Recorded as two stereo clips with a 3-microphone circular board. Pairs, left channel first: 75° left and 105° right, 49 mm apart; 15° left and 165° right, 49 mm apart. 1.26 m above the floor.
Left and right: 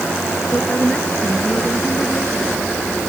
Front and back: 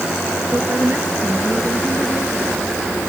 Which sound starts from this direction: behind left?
A woman speaking, at 0.5 s.